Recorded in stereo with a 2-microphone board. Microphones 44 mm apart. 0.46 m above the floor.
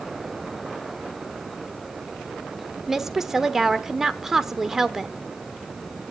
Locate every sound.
2.9 s a woman speaking: 10° right (ahead or behind), 0.9 m